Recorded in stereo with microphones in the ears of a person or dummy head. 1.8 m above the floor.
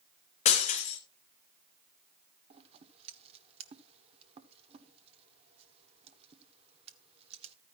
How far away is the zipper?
I don't hear a zipper.